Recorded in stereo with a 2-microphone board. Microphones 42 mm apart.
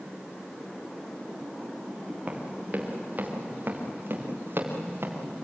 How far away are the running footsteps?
About 5.5 m.